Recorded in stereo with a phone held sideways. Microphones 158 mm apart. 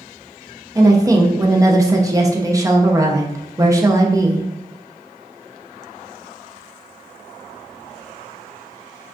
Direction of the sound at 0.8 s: 20° right (ahead or behind).